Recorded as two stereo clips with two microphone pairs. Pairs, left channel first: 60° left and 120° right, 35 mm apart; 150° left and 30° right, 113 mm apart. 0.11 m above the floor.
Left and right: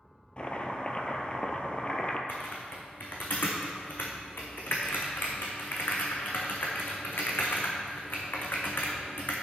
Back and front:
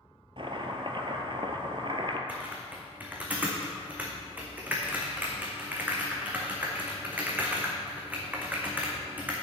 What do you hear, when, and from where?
0.4 s chopping: 5° left, 0.8 m
2.3 s typing on a keyboard: 45° left, 1.6 m